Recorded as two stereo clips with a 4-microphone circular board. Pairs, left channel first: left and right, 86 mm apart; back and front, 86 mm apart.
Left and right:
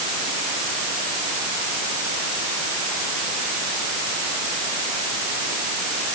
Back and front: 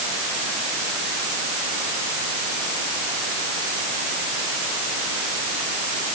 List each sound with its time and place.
Only background noise.